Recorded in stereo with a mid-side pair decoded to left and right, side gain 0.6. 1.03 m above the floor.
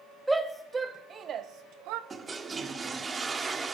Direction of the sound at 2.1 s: 25° right.